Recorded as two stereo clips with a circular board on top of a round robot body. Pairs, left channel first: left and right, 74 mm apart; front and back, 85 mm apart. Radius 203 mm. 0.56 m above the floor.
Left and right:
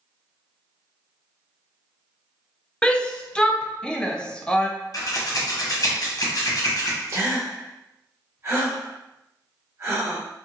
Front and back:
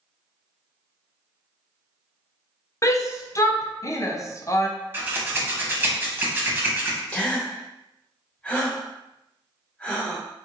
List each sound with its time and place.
2.8 s a shout: 20° left, 0.6 m
4.9 s scissors: 120° left, 1.0 m
7.1 s a gasp: 65° right, 1.5 m